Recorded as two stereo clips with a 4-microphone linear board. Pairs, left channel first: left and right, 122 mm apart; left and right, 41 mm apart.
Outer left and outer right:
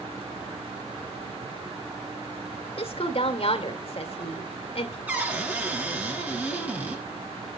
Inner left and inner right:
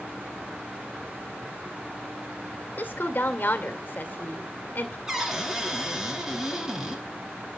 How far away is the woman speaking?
About 2 m.